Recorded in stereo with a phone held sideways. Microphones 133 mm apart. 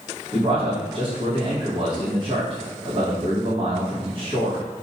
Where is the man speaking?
45° right (ahead or behind), 1.2 m.